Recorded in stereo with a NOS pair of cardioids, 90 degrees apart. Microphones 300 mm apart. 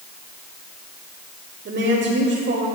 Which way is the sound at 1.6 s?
45° right.